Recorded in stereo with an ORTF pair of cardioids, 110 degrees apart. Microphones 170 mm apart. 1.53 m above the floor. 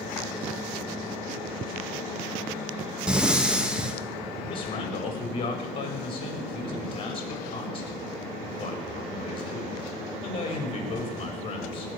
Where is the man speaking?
35° left, 5 m.